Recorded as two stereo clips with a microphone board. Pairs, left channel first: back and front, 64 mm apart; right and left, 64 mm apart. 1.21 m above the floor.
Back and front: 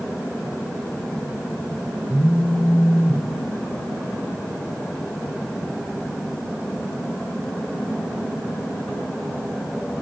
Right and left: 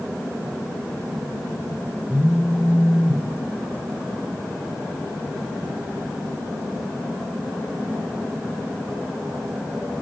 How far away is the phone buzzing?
About 0.8 m.